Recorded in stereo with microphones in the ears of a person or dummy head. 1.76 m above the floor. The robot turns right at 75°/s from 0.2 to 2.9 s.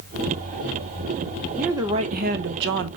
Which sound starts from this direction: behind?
A woman speaking, at 1.6 s.